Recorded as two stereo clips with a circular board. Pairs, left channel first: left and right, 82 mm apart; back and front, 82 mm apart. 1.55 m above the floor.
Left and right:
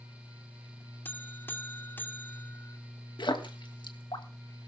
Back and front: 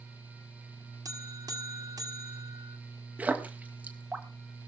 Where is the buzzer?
30° left, 1.8 m.